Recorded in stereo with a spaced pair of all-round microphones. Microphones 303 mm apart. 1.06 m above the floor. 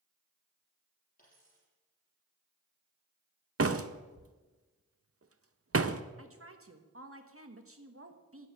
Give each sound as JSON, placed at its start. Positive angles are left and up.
{"t": 1.2, "sound": "a dropped coin", "side_deg": 30, "distance_m": 6.5}
{"t": 3.6, "sound": "a door slam", "side_deg": -50, "distance_m": 0.6}
{"t": 6.2, "sound": "a woman speaking", "side_deg": -45, "distance_m": 1.4}